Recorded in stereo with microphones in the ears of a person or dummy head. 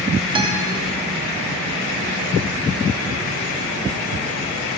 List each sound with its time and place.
0.3 s a guitar: 20° right (ahead or behind), 0.7 m